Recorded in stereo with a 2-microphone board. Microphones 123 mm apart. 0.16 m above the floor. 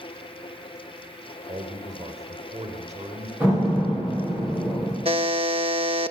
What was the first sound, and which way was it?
A man speaking, 60° right (ahead or behind).